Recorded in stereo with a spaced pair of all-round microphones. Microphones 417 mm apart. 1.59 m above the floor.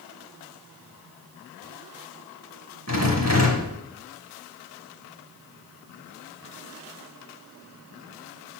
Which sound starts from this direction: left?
A rattle, at 2.9 s.